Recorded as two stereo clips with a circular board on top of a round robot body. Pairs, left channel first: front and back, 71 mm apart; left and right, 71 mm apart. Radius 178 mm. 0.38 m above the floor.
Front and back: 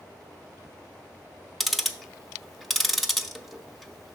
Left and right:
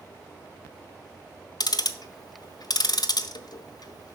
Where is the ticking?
90° left, 0.7 m.